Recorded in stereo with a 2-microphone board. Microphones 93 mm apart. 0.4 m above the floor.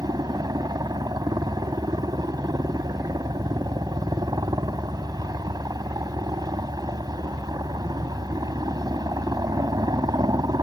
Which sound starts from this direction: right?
A helicopter, at 0.0 s.